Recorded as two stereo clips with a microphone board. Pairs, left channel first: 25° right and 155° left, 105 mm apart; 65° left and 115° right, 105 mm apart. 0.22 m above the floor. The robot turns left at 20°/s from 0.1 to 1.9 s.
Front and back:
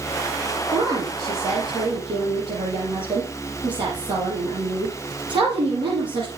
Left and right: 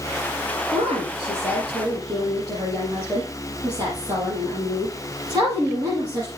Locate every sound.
0.7 s a woman speaking: 140° right, 7 m; by 6.3 s 165° right, 7 m